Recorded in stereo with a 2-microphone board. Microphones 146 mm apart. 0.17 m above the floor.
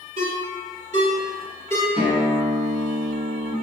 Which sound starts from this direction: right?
A ringtone, at 0.2 s.